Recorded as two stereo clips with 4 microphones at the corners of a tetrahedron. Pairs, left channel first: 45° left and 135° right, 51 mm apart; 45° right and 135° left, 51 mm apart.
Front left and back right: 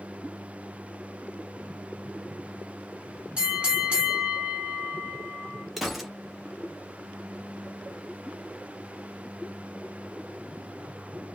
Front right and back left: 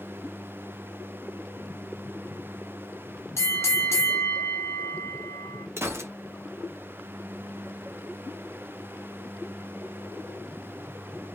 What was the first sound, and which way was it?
A bell, 65° right.